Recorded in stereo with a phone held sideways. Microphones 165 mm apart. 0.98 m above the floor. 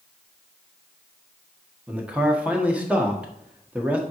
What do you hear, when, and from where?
1.9 s a man speaking: 10° right (ahead or behind), 1.4 m